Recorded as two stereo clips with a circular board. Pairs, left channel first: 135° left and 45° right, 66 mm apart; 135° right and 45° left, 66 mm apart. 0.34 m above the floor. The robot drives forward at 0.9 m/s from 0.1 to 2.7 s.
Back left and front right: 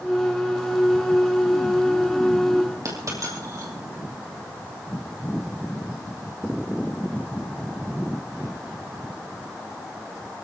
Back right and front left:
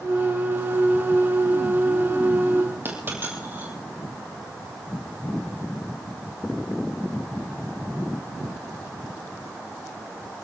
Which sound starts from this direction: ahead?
A dropped coin, at 2.9 s.